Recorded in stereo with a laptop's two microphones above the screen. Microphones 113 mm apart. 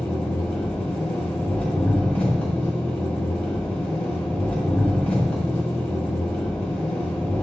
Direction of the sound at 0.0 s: 15° left (ahead or behind).